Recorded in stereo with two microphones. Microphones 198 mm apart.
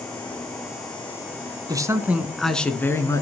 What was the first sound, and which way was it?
A man speaking, 15° right (ahead or behind).